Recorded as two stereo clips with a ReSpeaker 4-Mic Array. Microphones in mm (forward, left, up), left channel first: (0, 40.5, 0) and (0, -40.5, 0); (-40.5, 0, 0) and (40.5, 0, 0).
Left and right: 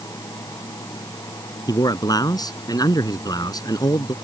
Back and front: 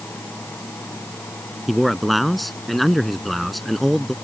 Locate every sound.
1.7 s a man speaking: 90° left